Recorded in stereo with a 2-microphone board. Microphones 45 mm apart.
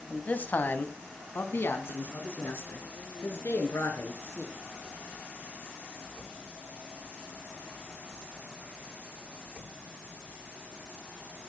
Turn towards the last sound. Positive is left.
turn(degrees=75)  # may be behind; listen again after turning